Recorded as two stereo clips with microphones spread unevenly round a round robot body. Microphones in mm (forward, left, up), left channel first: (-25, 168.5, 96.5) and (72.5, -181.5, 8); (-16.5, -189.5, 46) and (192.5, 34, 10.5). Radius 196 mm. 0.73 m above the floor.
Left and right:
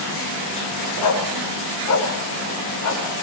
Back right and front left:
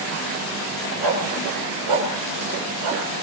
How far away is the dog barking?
About 4.5 m.